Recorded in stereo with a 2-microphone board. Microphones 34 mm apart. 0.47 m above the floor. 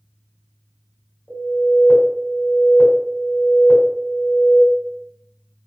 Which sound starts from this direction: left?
An alarm, at 1.3 s.